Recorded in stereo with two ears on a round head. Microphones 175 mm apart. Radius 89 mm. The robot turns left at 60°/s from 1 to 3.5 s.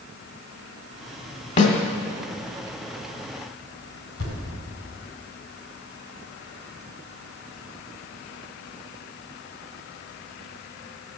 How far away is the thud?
About 4 m.